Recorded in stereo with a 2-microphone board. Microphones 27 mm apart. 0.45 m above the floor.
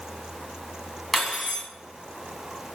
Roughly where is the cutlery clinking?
Centre.